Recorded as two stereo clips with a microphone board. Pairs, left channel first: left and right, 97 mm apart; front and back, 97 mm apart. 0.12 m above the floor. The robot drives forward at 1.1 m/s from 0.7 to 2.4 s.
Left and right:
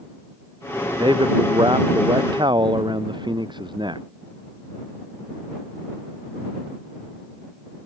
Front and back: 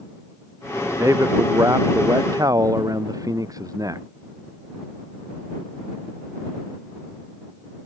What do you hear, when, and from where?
1.0 s a man speaking: 125° right; by 4.0 s 130° right